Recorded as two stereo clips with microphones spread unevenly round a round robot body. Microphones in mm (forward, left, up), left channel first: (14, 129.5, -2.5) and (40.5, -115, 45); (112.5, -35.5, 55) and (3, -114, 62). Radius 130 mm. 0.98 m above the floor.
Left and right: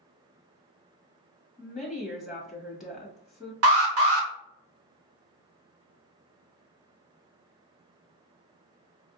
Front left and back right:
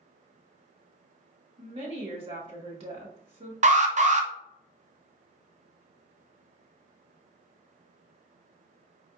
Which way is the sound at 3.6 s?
120° right.